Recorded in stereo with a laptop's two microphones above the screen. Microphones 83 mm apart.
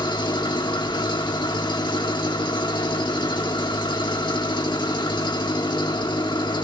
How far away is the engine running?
About 1.4 m.